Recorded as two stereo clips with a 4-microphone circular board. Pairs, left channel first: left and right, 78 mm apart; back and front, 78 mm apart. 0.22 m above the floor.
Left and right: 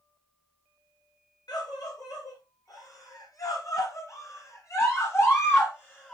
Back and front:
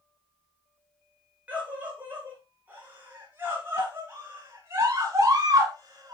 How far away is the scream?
About 4.5 m.